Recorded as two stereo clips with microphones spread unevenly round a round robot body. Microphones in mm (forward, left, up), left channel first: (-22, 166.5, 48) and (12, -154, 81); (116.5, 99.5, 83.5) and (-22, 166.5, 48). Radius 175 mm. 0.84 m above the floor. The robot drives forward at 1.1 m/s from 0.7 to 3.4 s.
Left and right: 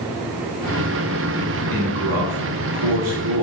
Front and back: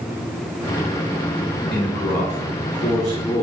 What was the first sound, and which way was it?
A man speaking, 55° right.